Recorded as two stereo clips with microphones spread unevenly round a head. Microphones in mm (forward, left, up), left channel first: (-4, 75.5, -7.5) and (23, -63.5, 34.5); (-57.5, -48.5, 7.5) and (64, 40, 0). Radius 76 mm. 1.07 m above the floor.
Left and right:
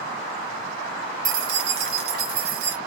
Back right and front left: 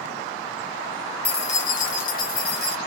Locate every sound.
1.2 s keys jangling: 85° right, 0.7 m; by 2.8 s 115° right, 1.6 m